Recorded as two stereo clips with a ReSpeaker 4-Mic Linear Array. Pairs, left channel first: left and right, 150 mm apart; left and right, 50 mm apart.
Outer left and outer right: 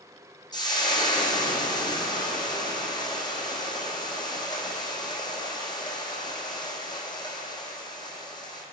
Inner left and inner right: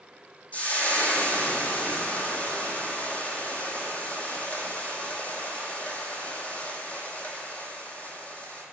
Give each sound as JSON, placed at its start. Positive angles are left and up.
{"t": 0.5, "sound": "frying", "side_deg": 30, "distance_m": 1.2}